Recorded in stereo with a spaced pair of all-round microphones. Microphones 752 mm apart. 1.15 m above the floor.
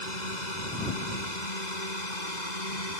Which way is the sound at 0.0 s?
80° left.